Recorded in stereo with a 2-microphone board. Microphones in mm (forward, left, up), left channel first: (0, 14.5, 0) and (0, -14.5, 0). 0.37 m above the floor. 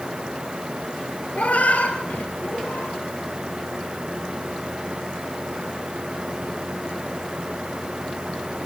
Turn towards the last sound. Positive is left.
turn(degrees=85)